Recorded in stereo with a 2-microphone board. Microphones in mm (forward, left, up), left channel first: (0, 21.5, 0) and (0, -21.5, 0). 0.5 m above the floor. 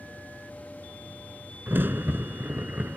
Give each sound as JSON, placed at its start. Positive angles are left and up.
{"t": 1.7, "sound": "a crack", "side_deg": -50}